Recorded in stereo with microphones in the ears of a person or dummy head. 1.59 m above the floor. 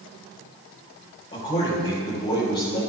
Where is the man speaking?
30° left (ahead or behind), 4.5 m.